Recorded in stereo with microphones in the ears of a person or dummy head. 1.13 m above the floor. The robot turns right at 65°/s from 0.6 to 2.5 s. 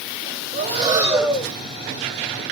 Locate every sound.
0.5 s breathing: 45° right, 0.9 m; by 1.5 s 15° left, 0.9 m